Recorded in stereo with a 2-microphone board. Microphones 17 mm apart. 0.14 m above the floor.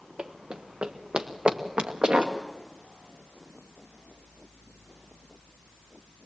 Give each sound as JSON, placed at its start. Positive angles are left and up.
{"t": 0.2, "sound": "running footsteps", "side_deg": -75, "distance_m": 1.1}